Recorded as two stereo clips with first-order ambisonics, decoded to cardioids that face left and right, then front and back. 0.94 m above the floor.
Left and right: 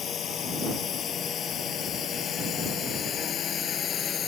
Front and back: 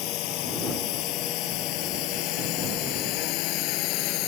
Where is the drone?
30° left.